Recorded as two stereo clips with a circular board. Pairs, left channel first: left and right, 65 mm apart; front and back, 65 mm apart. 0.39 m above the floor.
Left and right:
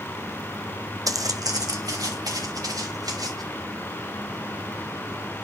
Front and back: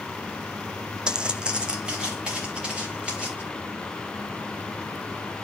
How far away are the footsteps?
About 0.8 m.